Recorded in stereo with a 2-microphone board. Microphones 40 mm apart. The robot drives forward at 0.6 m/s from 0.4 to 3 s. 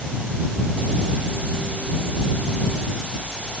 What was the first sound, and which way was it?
Only background noise.